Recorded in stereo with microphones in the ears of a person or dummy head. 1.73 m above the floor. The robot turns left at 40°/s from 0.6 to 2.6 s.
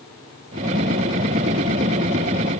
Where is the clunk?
No clunk in this recording.